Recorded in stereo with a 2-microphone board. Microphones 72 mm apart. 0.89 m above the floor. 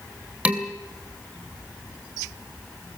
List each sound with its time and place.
0.5 s dishes clattering: 20° right (ahead or behind), 2.5 m